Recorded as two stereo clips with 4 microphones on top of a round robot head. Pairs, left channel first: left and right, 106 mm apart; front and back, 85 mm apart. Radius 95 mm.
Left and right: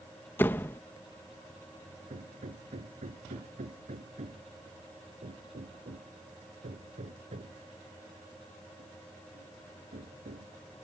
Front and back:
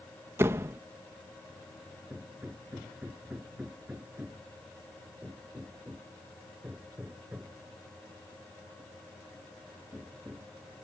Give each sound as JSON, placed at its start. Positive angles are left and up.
{"t": 0.4, "sound": "a door slam", "azimuth_deg": 145}
{"t": 2.1, "sound": "hammering", "azimuth_deg": -105}